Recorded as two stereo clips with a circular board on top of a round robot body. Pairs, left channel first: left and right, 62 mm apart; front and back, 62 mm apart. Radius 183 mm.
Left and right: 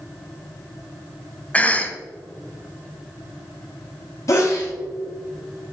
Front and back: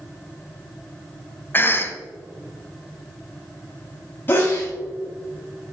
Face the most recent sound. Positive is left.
turn(degrees=55)